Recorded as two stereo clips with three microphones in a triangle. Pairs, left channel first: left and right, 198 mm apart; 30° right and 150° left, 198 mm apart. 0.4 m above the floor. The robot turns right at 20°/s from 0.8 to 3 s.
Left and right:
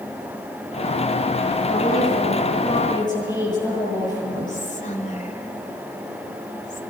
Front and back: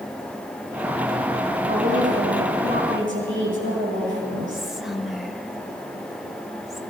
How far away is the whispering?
About 1.6 m.